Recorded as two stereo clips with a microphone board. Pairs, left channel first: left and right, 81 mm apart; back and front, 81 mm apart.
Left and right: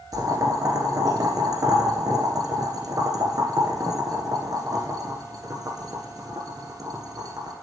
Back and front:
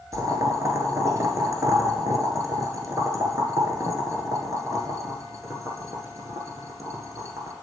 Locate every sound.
0.1 s boiling: 50° right, 1.6 m